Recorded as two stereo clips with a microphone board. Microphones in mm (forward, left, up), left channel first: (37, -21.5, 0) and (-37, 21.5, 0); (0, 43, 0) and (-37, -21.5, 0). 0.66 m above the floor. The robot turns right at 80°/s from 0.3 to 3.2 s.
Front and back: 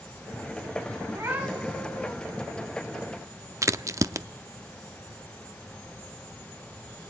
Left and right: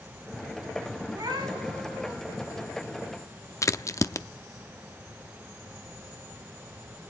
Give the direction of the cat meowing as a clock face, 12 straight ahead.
6 o'clock.